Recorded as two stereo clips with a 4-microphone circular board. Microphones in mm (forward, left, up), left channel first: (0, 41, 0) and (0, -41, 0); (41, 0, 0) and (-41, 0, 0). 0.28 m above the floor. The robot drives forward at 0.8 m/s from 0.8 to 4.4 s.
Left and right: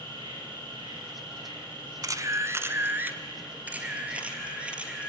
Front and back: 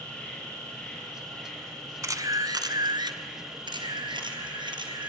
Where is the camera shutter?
130° right, 0.9 m; by 5.1 s 165° right, 2.5 m.